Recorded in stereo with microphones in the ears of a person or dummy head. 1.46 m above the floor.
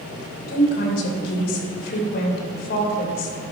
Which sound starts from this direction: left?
A woman speaking, at 0.5 s.